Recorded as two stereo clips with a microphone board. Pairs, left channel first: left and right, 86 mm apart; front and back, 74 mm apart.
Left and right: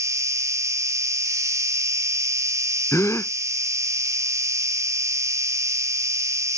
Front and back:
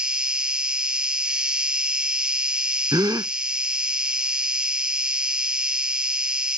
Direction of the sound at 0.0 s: 110° right.